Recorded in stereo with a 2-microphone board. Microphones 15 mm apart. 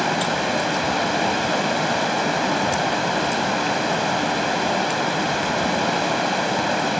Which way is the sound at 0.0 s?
Centre (ahead or behind).